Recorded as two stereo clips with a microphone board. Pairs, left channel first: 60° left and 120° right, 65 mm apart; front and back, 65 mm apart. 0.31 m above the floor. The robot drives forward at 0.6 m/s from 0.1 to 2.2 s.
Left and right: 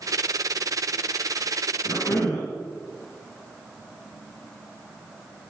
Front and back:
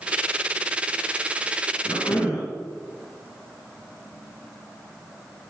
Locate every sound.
1.9 s a cough: 30° left, 3.5 m